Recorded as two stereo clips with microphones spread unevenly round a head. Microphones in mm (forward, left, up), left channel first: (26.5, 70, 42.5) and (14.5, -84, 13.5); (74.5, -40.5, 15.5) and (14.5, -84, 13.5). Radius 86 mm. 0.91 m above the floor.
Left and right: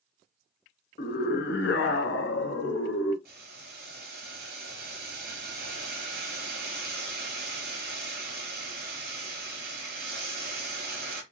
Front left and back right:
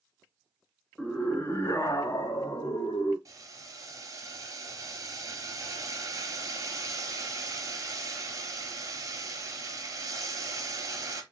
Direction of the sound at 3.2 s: 110° right.